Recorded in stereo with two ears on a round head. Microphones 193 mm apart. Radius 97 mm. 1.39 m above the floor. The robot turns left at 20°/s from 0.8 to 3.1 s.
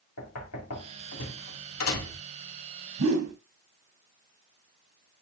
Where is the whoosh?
75° right (ahead or behind), 1.8 m.